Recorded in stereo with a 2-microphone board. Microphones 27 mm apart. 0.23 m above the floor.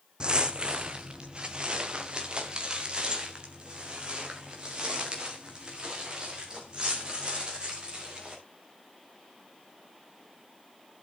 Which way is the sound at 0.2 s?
40° right (ahead or behind).